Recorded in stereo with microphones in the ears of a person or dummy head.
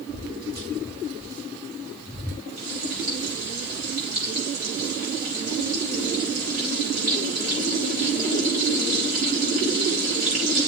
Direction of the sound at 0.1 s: 30° right (ahead or behind).